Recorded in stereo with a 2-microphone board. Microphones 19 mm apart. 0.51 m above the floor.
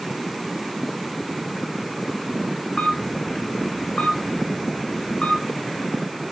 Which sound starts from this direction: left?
A camera shutter, at 2.8 s.